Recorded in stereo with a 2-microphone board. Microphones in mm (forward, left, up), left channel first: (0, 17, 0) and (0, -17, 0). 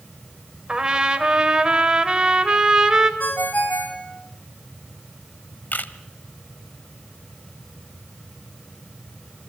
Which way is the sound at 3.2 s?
60° left (ahead or behind).